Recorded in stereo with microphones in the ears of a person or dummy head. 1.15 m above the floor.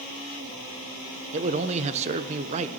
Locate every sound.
1.3 s a man speaking: 35° right (ahead or behind), 0.8 m